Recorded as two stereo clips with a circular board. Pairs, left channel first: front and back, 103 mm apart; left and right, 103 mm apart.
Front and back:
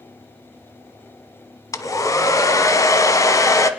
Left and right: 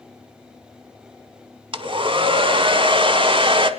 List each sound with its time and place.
1.7 s a hair dryer: 55° right, 0.7 m